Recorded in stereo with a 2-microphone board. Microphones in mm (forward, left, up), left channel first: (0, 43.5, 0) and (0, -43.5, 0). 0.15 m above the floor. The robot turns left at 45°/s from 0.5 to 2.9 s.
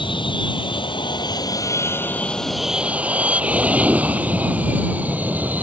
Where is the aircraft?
70° left (ahead or behind); by 5.6 s 20° right (ahead or behind).